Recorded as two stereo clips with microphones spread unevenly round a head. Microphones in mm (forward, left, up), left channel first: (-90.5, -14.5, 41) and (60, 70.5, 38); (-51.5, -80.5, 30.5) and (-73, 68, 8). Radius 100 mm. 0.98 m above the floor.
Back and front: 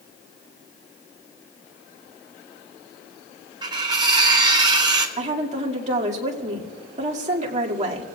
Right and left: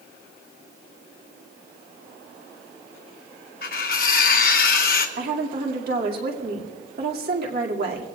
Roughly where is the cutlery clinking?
Ahead right.